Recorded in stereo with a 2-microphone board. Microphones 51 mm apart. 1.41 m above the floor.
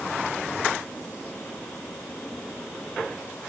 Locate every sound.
Only background noise.